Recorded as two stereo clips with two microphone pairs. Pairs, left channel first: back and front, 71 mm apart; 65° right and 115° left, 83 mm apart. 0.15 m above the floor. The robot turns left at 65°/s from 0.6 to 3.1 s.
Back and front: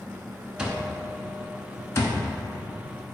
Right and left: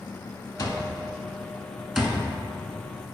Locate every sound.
0.6 s an alarm clock: 75° right, 0.6 m; by 2.2 s straight behind, 0.6 m